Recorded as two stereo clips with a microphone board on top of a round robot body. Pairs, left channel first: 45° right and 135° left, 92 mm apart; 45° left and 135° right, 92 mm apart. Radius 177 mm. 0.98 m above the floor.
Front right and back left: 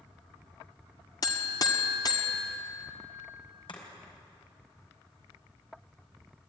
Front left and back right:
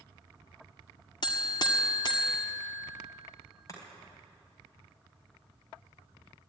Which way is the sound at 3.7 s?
10° right.